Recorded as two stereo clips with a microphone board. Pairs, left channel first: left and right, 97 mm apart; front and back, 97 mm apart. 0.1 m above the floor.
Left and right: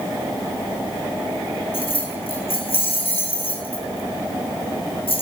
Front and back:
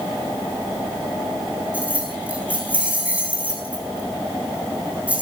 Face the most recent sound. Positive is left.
turn(degrees=105)